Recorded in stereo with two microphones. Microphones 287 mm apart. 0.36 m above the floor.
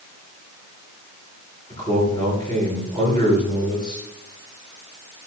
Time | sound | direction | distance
1.7 | a man speaking | 15° left (ahead or behind) | 4 m